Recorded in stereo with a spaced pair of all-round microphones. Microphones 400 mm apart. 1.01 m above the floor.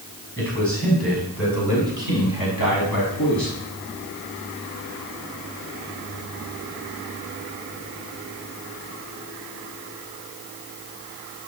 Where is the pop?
No pop in this recording.